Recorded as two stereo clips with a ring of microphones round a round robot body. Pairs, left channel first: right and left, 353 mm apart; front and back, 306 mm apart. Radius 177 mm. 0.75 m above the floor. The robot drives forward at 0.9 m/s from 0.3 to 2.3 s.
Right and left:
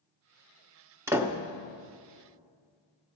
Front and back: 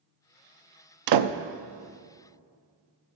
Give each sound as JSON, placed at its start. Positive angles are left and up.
{"t": 1.1, "sound": "a door slam", "azimuth_deg": 175, "distance_m": 0.6}